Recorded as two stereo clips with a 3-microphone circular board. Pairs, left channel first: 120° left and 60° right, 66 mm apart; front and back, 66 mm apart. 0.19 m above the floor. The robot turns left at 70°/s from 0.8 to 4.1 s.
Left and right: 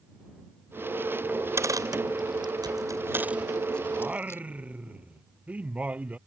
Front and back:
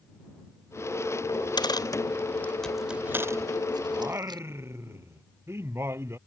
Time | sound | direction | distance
1.3 | a dropped coin | 10° left | ?
3.9 | singing | 115° right | ?